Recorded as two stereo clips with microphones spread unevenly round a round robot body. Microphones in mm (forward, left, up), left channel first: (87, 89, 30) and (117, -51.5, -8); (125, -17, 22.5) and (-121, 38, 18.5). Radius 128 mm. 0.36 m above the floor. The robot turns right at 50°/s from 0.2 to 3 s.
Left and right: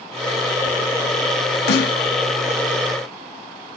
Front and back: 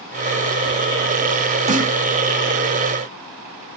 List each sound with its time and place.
1.7 s a snare drum: 100° left, 0.6 m; by 2.0 s 115° left, 0.6 m